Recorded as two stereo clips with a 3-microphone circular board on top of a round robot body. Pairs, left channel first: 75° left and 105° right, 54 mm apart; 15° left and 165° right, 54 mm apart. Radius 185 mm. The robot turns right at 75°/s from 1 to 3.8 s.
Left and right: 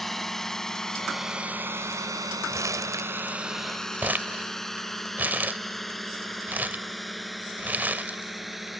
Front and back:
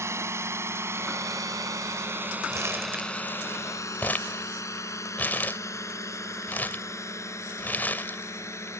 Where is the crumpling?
140° right; by 8.7 s 45° right.